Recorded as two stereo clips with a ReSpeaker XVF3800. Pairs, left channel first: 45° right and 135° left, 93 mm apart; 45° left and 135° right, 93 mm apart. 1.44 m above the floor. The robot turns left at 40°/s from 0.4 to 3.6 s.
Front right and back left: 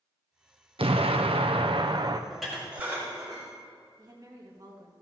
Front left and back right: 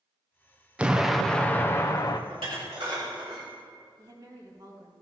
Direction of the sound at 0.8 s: 150° left.